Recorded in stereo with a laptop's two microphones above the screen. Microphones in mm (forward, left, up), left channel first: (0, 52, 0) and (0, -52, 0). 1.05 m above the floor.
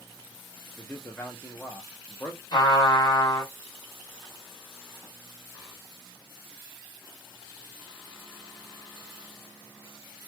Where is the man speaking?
20° left (ahead or behind), 0.6 m.